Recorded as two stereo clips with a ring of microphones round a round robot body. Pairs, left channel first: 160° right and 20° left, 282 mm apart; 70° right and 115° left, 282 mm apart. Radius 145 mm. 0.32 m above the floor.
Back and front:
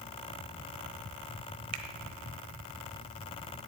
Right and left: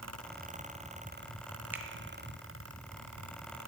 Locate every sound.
1.7 s a finger snap: 30° left, 1.2 m